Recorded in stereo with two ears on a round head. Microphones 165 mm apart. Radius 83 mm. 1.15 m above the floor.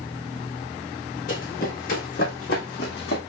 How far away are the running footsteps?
About 4 m.